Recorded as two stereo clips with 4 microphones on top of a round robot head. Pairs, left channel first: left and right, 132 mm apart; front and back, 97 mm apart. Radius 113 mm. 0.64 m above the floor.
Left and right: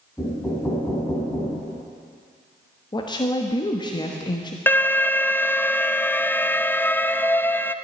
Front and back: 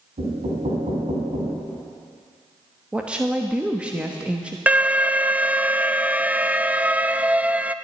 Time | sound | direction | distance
0.2 | knocking | 170° left | 3.5 m
2.9 | a woman speaking | 110° left | 1.3 m
4.7 | an alarm | 135° left | 0.6 m